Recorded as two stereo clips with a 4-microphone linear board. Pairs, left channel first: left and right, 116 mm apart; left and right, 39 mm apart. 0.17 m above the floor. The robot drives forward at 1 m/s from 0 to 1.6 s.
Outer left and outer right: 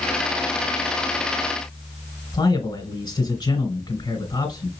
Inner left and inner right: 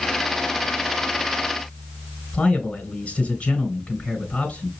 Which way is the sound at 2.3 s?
40° left (ahead or behind).